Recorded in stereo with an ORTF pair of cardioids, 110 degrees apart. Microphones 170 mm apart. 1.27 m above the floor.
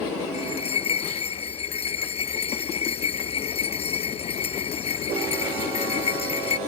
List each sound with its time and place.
0.3 s a bell: 35° left